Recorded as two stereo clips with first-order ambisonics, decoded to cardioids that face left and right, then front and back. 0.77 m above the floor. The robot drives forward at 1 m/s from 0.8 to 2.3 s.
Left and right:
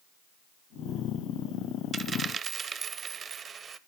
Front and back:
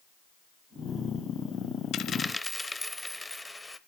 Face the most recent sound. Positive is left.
turn(degrees=-80)